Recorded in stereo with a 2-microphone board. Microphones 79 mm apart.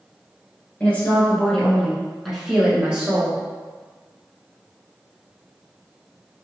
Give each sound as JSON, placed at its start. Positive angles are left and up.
{"t": 0.8, "sound": "a woman speaking", "side_deg": 20, "distance_m": 1.7}